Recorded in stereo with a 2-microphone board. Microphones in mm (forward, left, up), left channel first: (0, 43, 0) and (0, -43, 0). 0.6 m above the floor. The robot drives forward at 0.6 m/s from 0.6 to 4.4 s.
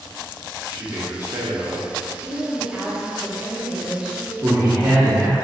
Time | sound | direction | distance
0.7 | a man speaking | 25° right (ahead or behind) | 1.1 m
2.2 | a woman speaking | 5° right (ahead or behind) | 1.2 m
4.4 | a man speaking | 25° right (ahead or behind) | 1.1 m